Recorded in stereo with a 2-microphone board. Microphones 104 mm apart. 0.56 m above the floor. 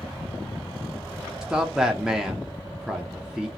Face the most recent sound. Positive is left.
turn(degrees=-5)  # may be behind; listen again after turning